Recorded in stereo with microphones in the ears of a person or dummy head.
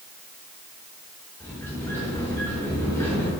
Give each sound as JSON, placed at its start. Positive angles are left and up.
{"t": 1.4, "sound": "a sliding door", "side_deg": 10, "distance_m": 3.5}